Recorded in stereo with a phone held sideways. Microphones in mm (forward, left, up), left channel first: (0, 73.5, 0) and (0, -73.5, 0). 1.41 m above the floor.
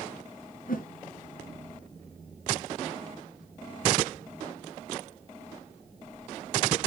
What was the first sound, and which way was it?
A whoosh, 70° left (ahead or behind).